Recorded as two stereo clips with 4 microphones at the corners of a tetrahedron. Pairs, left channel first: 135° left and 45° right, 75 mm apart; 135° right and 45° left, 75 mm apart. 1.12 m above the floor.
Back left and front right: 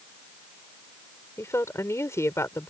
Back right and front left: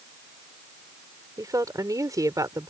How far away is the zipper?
No zipper in this recording.